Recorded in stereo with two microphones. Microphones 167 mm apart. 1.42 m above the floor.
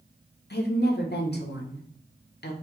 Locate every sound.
0.5 s a woman speaking: 85° left, 0.9 m